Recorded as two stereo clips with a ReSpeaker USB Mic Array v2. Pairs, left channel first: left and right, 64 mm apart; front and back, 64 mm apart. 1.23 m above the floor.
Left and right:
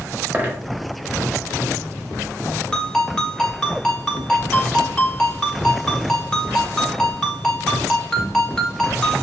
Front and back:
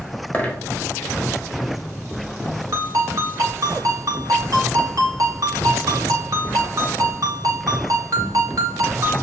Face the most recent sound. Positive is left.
turn(degrees=170)